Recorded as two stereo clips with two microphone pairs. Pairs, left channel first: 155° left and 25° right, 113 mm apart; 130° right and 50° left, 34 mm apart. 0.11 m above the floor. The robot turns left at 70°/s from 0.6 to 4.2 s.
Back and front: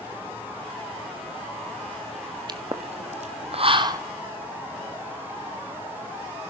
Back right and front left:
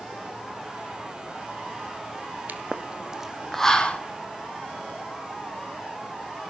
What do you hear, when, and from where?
2.5 s a pop: 25° left, 1.0 m; by 4.0 s 85° right, 1.0 m